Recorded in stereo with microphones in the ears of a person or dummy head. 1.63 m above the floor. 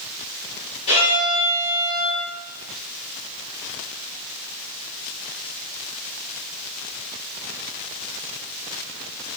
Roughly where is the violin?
Left.